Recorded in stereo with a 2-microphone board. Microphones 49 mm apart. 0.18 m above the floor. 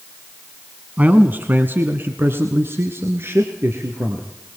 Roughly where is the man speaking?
Right.